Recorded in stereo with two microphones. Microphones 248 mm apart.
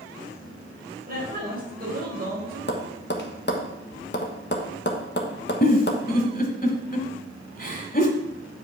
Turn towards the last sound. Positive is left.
turn(degrees=35)  # may be behind; listen again after turning